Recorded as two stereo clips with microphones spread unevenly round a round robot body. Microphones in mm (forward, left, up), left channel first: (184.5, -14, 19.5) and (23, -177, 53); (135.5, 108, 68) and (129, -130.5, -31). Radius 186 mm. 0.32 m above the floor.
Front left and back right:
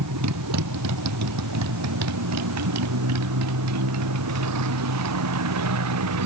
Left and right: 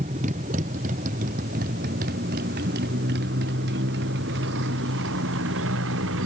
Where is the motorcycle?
160° right; by 6.3 s 145° right.